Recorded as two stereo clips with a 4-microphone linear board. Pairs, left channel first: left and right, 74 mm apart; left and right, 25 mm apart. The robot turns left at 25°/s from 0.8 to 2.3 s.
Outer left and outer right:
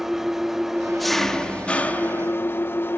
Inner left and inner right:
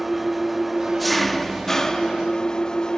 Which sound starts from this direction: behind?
An engine running, at 0.0 s.